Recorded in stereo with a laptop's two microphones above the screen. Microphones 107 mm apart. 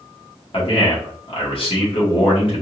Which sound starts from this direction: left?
A man speaking, at 0.5 s.